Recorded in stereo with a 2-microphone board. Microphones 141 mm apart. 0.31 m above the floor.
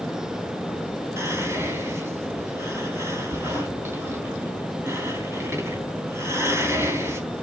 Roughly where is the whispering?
Centre.